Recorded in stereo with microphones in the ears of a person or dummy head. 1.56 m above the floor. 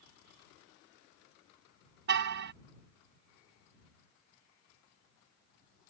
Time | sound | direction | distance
2.1 | a car horn | 60° right (ahead or behind) | ?